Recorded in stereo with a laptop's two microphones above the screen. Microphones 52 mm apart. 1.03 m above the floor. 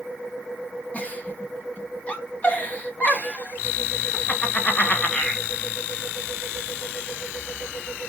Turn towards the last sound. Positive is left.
turn(degrees=30)  # may be behind; listen again after turning